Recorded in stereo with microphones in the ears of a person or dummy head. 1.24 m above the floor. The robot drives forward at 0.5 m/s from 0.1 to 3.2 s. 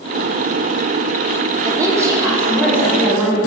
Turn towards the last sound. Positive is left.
turn(degrees=-10)  # may be behind; listen again after turning